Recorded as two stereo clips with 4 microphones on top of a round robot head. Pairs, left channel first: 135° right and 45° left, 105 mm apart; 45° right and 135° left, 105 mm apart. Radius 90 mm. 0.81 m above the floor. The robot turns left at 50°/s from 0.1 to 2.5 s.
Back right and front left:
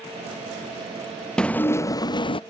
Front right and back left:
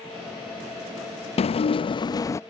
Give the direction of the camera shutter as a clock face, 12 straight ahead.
I don't hear a camera shutter.